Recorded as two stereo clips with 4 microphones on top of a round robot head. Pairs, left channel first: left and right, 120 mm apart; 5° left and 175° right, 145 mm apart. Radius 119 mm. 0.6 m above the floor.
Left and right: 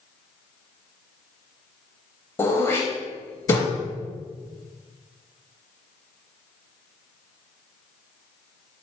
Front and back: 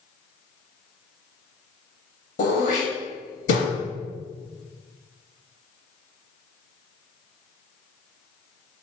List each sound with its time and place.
2.4 s throat clearing: 25° left, 0.5 m